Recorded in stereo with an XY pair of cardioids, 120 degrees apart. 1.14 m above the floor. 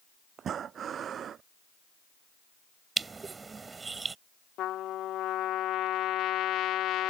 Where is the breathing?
50° right.